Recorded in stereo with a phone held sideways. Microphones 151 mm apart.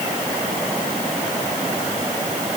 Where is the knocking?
I don't hear knocking.